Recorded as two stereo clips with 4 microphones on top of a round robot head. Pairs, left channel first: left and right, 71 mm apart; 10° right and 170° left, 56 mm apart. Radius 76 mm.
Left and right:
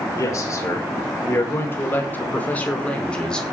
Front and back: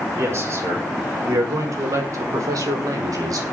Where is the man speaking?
135° left, 5.5 m; by 3.4 s 170° left, 5 m.